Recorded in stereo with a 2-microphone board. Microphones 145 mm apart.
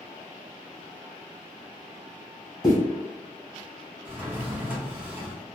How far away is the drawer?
About 0.7 m.